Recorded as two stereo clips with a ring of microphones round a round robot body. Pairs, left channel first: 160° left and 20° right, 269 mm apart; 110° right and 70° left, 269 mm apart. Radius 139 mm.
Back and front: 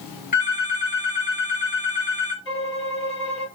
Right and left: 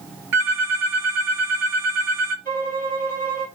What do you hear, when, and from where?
0.3 s a phone ringing: 95° left, 2 m
2.5 s a violin: 125° left, 1.9 m